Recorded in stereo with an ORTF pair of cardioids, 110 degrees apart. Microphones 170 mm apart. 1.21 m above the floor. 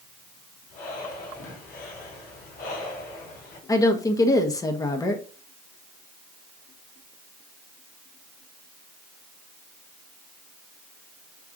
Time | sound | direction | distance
0.7 | breathing | 65° left | 3.5 m
3.7 | a woman speaking | 20° left | 1.5 m